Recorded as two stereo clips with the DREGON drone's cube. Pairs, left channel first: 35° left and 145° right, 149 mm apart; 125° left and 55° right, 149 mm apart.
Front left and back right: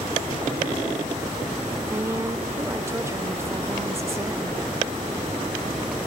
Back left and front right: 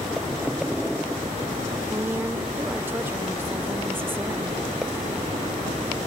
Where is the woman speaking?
105° right, 1.0 m.